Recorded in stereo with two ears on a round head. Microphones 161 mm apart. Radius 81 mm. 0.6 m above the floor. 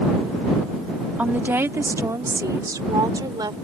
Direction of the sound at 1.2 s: 10° right (ahead or behind).